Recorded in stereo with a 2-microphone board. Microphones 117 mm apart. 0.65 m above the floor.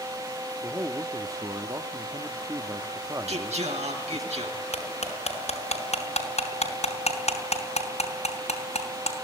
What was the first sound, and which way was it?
A man speaking, 30° right (ahead or behind).